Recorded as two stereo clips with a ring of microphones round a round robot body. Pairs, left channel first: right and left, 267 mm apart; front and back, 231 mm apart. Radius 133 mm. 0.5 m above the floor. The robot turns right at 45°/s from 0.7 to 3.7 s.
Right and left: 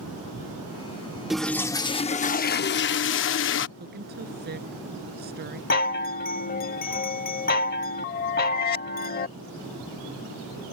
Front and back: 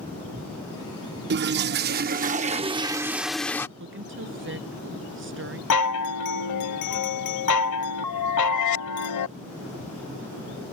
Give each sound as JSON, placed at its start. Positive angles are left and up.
{"t": 1.3, "sound": "a toilet flushing", "azimuth_deg": 180}
{"t": 3.8, "sound": "a woman speaking", "azimuth_deg": 145}
{"t": 5.7, "sound": "a chime", "azimuth_deg": -30}